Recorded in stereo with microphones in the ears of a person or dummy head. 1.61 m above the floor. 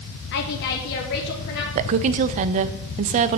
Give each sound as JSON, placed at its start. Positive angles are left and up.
{"t": 0.3, "sound": "a woman speaking", "side_deg": 55, "distance_m": 0.8}
{"t": 1.8, "sound": "a woman speaking", "side_deg": -40, "distance_m": 0.5}